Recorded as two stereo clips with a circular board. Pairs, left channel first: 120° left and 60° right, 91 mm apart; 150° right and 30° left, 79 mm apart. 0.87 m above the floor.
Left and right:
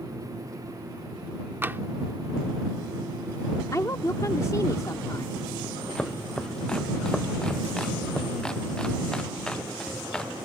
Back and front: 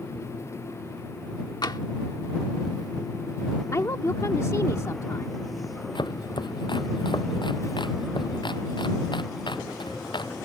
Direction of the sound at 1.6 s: 125° right.